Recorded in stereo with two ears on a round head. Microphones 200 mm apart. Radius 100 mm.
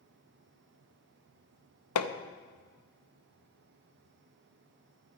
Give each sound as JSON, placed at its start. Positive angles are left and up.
{"t": 1.9, "sound": "hammering", "side_deg": 80, "distance_m": 0.8}